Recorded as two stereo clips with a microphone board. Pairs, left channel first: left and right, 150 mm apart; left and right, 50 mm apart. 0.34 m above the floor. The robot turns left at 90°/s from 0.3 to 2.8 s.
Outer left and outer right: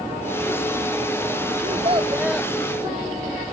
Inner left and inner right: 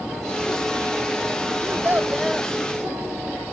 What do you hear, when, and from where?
1.6 s a child speaking: 115° right; by 2.5 s 165° left